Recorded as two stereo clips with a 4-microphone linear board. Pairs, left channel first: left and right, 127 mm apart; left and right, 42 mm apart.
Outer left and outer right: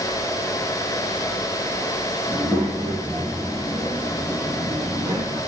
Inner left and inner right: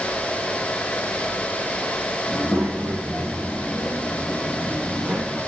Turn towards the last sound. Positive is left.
turn(degrees=-35)  # may be behind; listen again after turning